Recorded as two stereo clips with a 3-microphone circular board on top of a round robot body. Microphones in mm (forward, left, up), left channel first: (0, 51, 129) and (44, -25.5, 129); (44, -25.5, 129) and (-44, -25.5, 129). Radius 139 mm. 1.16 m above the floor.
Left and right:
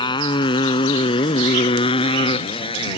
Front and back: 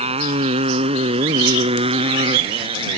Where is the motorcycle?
165° left; by 3.0 s 150° left.